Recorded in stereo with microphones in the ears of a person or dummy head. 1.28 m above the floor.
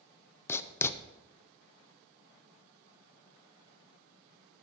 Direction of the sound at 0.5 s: 15° left (ahead or behind).